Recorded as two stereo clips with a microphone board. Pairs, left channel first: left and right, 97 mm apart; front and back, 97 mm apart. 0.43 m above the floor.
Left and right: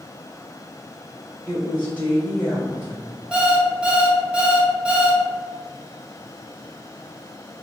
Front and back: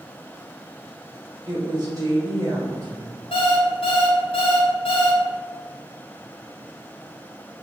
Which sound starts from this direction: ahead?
An alarm clock, at 3.3 s.